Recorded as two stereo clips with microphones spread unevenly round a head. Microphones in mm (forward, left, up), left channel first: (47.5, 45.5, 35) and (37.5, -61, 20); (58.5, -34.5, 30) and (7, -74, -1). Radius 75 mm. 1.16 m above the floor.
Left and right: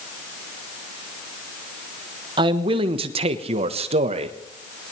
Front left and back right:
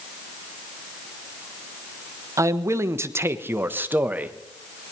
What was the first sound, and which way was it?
A man speaking, 135° right.